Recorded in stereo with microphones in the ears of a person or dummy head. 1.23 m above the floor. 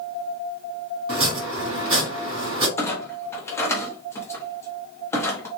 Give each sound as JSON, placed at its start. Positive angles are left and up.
{"t": 1.1, "sound": "chopping", "side_deg": -30, "distance_m": 2.0}
{"t": 2.8, "sound": "a clunk", "side_deg": 20, "distance_m": 0.8}